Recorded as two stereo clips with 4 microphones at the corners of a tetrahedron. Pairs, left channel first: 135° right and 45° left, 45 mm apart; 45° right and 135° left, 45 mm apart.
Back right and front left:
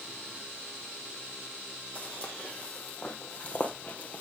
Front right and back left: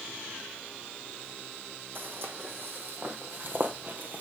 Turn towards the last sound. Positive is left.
turn(degrees=175)